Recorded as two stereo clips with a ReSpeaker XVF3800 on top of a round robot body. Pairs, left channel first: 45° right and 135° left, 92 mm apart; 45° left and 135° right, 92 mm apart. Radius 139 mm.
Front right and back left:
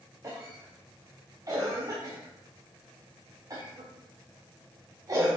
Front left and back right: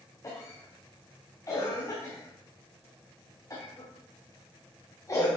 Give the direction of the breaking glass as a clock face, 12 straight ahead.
No breaking glass in this recording.